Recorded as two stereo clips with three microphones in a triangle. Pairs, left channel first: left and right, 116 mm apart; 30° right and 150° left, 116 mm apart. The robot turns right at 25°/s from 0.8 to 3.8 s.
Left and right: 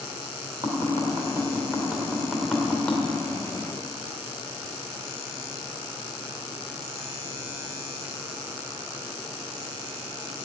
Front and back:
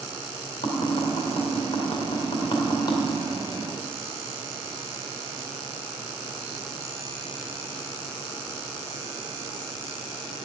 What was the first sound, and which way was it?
Tapping, 40° right.